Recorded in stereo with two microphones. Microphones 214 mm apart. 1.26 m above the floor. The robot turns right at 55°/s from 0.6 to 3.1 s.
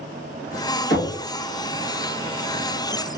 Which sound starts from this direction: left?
Knocking, at 0.9 s.